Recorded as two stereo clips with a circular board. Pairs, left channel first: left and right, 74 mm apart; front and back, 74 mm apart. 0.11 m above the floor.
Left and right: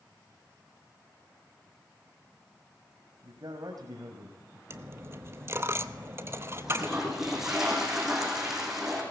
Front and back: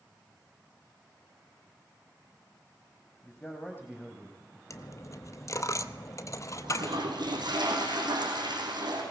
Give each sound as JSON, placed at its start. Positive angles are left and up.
{"t": 3.2, "sound": "a man speaking", "azimuth_deg": -60, "distance_m": 4.0}
{"t": 4.7, "sound": "a dropped coin", "azimuth_deg": -40, "distance_m": 0.8}
{"t": 6.6, "sound": "a toilet flushing", "azimuth_deg": -175, "distance_m": 6.0}